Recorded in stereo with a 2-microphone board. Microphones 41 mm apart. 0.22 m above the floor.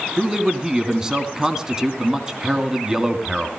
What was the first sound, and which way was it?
A man speaking, 15° right (ahead or behind).